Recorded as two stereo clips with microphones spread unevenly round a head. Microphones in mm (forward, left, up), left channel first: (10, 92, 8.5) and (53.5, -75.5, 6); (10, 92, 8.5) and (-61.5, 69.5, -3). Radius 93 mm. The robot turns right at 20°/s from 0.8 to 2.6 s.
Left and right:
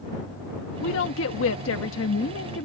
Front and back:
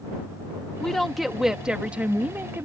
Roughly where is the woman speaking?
Left.